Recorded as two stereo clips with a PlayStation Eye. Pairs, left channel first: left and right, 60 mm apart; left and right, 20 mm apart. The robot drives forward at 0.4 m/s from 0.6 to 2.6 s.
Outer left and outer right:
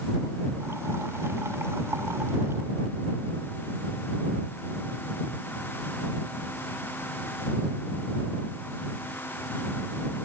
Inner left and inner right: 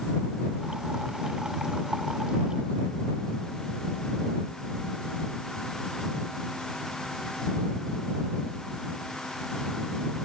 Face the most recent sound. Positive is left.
No sound to turn to.